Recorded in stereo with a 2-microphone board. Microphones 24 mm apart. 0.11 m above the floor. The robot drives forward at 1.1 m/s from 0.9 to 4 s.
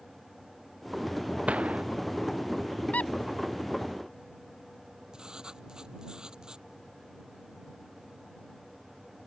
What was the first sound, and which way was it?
A gunshot, 65° right (ahead or behind).